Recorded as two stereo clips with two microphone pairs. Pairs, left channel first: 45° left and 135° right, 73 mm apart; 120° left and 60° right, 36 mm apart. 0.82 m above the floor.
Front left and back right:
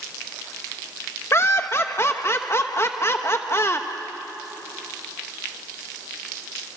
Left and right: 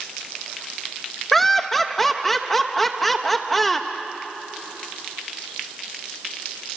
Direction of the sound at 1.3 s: 35° left.